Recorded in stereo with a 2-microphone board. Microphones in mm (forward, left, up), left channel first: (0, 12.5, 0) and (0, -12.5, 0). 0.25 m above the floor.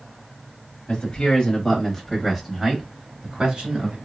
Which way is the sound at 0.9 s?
35° left (ahead or behind).